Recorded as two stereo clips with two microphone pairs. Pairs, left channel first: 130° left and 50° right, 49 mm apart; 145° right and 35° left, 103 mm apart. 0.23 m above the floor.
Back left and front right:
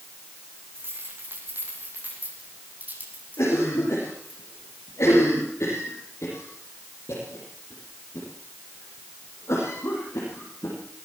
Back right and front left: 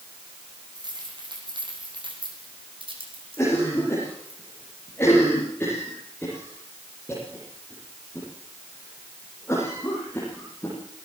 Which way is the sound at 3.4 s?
145° left.